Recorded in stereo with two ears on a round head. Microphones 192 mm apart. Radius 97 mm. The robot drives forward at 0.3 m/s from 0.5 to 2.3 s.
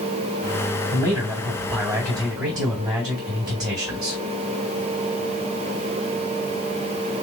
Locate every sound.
0.9 s a man speaking: 15° right (ahead or behind), 3 m; by 4.2 s 20° right (ahead or behind), 3 m